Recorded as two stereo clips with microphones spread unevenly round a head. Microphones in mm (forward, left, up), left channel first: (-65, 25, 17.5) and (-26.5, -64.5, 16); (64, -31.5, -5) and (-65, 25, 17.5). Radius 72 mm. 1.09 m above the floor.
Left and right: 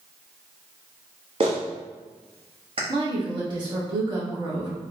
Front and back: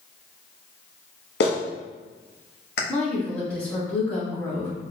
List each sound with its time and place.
1.4 s a clap: 10° right, 1.0 m
2.9 s a woman speaking: 100° right, 1.7 m